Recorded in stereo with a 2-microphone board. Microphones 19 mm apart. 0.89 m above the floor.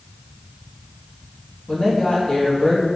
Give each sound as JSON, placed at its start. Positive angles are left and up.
{"t": 1.7, "sound": "a woman speaking", "side_deg": 45, "distance_m": 0.9}